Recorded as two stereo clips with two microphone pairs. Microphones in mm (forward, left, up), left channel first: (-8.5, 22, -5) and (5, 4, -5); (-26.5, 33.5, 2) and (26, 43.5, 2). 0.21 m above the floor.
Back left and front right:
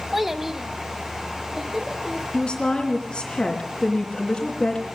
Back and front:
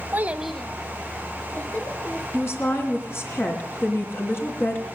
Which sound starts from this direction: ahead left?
A child speaking, at 0.1 s.